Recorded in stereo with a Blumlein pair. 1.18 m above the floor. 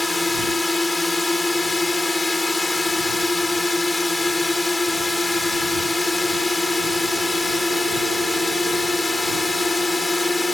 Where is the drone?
10° left.